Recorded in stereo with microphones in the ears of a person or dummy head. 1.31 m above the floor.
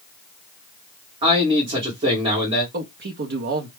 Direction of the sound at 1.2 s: 30° right (ahead or behind).